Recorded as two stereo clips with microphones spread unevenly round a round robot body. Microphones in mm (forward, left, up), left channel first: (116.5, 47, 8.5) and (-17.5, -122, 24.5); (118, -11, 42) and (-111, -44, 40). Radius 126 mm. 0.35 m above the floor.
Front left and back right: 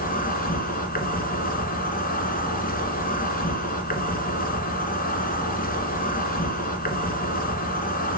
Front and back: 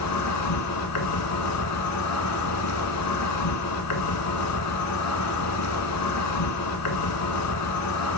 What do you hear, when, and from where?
0.0 s an insect: straight ahead, 1.6 m